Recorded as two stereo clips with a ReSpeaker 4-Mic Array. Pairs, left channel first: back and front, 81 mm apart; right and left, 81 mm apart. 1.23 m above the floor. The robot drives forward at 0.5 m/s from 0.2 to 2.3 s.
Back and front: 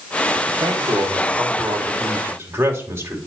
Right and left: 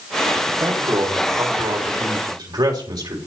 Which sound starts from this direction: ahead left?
A man speaking, at 0.5 s.